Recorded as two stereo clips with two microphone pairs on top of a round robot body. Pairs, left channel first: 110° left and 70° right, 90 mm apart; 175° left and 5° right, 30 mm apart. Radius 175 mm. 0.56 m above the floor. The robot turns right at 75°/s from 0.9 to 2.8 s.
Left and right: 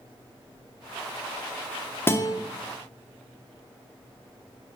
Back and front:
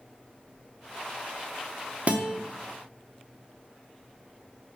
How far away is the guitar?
About 0.8 m.